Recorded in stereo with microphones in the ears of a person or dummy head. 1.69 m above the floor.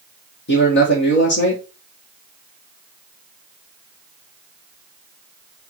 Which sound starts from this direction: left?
A man speaking, at 0.5 s.